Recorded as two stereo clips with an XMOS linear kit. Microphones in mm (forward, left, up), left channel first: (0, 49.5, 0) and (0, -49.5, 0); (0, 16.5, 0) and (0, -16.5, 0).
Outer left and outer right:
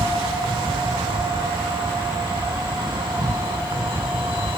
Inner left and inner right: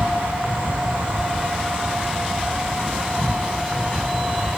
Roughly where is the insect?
Right.